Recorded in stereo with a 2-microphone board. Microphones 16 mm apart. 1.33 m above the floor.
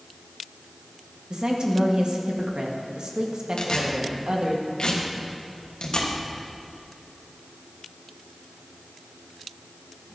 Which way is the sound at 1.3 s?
70° right (ahead or behind).